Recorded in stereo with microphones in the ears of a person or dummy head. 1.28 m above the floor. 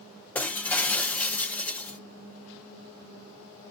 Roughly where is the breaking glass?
Centre.